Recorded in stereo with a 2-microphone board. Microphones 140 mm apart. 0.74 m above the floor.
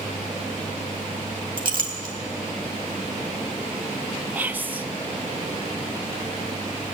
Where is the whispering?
10° right (ahead or behind), 0.6 m.